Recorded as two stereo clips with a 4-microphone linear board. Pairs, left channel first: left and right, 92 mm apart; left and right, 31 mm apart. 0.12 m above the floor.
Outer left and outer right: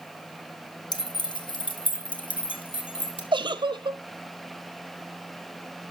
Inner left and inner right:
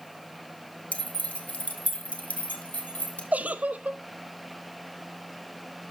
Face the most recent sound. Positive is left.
turn(degrees=-60)  # may be behind; listen again after turning